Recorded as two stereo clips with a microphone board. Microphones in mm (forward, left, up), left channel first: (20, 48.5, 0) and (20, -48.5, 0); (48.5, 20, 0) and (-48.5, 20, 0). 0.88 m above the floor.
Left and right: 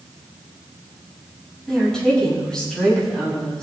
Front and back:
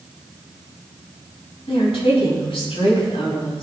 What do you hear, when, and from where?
1.7 s a woman speaking: 5° left, 6 m